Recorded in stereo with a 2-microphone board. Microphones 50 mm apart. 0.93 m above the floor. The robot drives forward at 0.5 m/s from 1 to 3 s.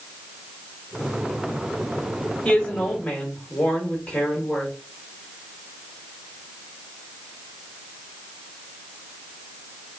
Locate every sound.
2.5 s a woman speaking: 20° left (ahead or behind), 1.2 m; by 4.7 s 15° left (ahead or behind), 1.5 m